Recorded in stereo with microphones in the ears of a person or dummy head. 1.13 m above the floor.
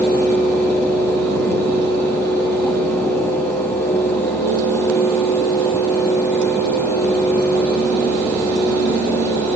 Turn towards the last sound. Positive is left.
No sound to turn to.